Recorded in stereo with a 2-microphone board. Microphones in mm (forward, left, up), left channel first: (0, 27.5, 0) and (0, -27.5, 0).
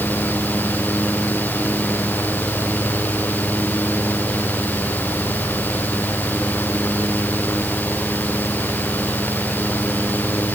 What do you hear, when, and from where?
Only background noise.